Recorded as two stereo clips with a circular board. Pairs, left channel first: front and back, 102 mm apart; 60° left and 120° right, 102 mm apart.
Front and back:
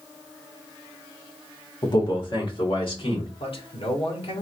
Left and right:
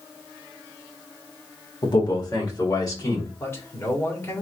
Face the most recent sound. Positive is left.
turn(degrees=0)